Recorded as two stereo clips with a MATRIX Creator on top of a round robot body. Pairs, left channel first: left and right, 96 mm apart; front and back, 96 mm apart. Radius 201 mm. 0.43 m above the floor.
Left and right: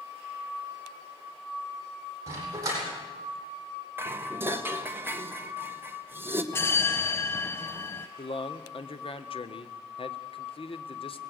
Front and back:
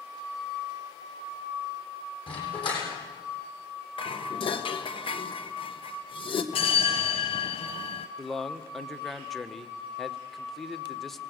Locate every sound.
2.3 s a dog barking: 35° right, 8 m
4.0 s dishes clattering: 25° right, 1.9 m
6.5 s a bell: 25° left, 0.6 m
8.2 s a man speaking: 90° left, 1.8 m